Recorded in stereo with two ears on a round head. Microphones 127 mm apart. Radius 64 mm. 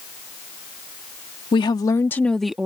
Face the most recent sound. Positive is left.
turn(degrees=-10)  # may be behind; listen again after turning